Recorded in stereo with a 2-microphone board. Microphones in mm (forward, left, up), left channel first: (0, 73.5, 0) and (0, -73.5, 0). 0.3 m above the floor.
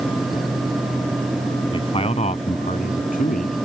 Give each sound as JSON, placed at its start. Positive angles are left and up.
{"t": 1.7, "sound": "a man speaking", "side_deg": 35}